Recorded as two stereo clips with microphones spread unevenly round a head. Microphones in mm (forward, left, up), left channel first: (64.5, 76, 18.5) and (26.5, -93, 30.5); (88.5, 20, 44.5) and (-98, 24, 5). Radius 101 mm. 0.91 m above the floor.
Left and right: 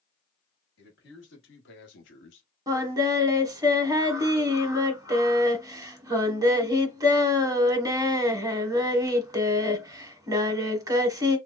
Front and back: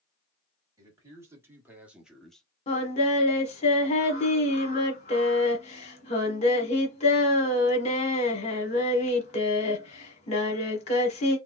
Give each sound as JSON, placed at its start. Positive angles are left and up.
{"t": 0.8, "sound": "a man speaking", "azimuth_deg": 105, "distance_m": 2.0}
{"t": 2.7, "sound": "singing", "azimuth_deg": -40, "distance_m": 1.1}